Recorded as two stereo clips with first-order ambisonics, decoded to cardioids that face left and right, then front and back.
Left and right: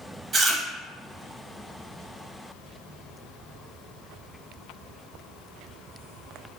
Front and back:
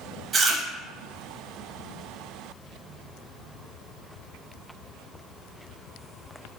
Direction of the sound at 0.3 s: 140° right.